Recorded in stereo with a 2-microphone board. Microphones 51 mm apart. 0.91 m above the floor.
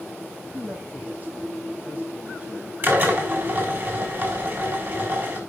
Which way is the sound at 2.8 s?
45° right (ahead or behind).